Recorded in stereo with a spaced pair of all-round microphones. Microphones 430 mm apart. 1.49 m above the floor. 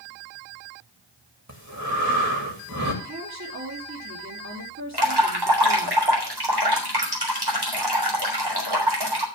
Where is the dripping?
60° right (ahead or behind), 3.5 m.